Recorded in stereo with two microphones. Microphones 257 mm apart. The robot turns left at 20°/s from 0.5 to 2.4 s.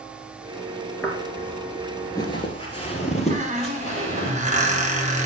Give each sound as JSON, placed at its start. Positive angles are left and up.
{"t": 1.0, "sound": "footsteps", "side_deg": 5, "distance_m": 1.5}
{"t": 3.3, "sound": "a squeak", "side_deg": -30, "distance_m": 1.0}